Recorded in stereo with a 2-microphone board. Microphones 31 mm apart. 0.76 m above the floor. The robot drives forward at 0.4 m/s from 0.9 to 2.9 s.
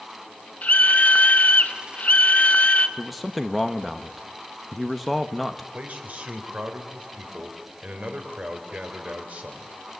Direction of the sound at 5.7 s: 45° right (ahead or behind).